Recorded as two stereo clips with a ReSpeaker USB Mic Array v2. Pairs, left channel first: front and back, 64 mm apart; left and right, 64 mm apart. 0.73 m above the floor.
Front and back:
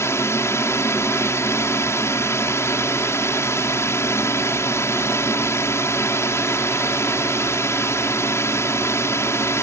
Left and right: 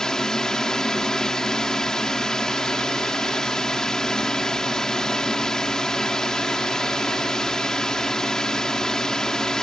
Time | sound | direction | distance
0.0 | a drone | 10° left | ?